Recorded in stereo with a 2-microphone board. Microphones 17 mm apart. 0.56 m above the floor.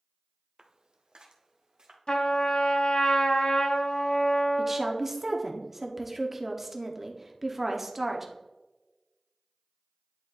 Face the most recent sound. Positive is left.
turn(degrees=-20)  # may be behind; listen again after turning